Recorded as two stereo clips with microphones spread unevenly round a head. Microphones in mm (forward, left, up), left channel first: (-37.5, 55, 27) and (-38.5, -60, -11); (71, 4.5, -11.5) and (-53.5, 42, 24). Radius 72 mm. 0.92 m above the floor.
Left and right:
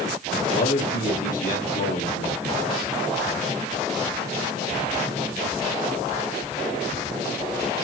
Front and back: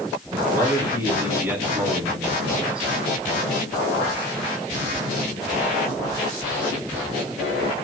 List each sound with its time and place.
0.3 s a man speaking: 95° left, 5.5 m; by 2.9 s 80° left, 6 m